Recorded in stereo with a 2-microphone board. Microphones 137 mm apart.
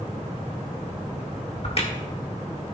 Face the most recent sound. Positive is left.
turn(degrees=45)  # may be behind; listen again after turning